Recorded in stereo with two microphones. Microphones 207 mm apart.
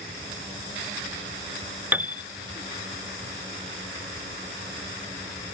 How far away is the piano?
About 0.6 m.